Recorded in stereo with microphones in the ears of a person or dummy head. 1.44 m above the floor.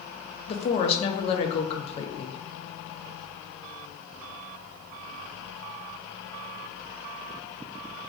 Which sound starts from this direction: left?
A woman speaking, at 0.5 s.